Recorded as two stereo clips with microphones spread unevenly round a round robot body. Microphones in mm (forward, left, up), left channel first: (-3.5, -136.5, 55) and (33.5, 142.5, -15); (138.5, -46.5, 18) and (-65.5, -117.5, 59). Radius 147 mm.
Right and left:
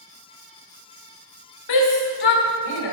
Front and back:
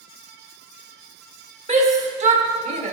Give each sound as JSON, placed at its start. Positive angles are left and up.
{"t": 1.7, "sound": "a shout", "azimuth_deg": -100, "distance_m": 2.5}